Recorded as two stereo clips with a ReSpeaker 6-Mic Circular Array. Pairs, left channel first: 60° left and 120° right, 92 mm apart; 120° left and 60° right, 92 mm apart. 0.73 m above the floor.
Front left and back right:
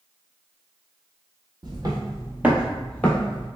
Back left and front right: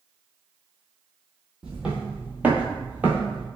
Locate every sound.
1.6 s footsteps: 140° right, 1.1 m; by 3.5 s 10° left, 1.0 m